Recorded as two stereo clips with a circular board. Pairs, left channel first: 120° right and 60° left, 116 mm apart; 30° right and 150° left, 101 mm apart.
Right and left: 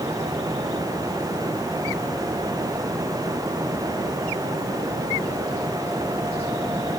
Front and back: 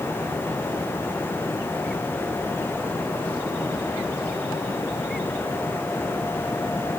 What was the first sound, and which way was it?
Only background noise.